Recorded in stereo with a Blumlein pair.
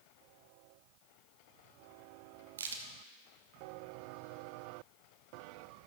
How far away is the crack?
About 1.3 m.